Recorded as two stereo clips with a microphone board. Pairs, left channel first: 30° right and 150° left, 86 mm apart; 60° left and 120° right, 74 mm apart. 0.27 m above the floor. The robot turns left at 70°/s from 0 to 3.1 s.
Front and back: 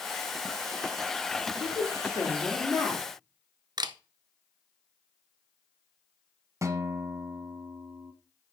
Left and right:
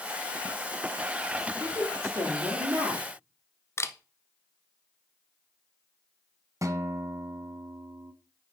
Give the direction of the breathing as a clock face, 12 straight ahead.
No breathing in this recording.